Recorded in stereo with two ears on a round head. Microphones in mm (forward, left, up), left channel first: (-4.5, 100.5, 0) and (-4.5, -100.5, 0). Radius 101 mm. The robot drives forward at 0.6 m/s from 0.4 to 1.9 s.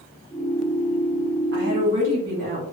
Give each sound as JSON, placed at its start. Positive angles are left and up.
{"t": 1.5, "sound": "a woman speaking", "side_deg": -40, "distance_m": 1.1}